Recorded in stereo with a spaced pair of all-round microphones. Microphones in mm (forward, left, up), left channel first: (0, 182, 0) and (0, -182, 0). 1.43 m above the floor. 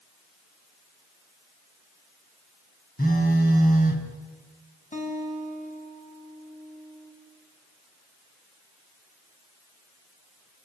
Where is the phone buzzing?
25° left (ahead or behind), 3.5 m.